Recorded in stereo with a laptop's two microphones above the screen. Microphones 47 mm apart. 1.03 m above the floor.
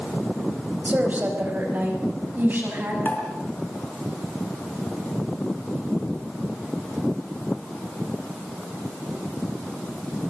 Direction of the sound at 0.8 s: 35° right (ahead or behind).